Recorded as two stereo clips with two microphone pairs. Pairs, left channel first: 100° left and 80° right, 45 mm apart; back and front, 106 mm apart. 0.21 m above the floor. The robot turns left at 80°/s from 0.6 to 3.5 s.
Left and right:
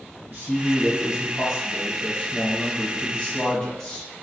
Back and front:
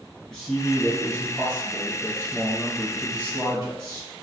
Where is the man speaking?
80° right, 1.2 m; by 4.1 s 45° left, 1.2 m.